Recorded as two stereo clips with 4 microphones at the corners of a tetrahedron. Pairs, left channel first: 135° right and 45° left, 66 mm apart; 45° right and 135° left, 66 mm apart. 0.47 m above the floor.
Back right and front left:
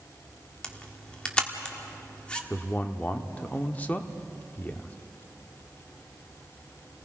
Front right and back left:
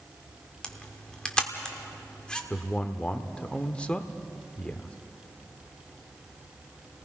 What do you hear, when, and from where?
0.6 s a camera shutter: 90° right, 1.4 m
2.5 s a man speaking: 100° right, 0.9 m